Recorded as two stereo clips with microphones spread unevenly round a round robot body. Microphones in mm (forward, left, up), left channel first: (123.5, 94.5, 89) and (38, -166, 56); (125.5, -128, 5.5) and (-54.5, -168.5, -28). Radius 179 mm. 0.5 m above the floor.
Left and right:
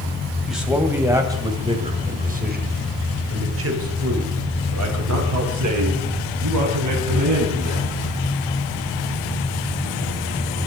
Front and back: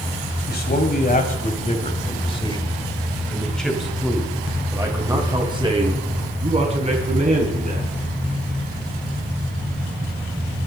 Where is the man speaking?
20° right, 4 m; by 7.9 s 120° right, 6.5 m.